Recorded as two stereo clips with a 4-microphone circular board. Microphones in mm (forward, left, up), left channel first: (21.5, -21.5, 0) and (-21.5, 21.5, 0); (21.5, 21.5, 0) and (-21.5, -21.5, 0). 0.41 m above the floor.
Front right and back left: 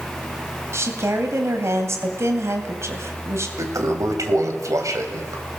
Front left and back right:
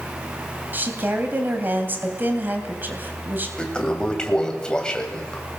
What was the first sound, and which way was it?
A woman speaking, 170° left.